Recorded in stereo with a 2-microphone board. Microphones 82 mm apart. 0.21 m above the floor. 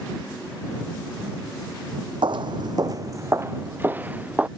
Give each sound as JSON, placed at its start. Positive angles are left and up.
{"t": 2.2, "sound": "footsteps", "side_deg": -75}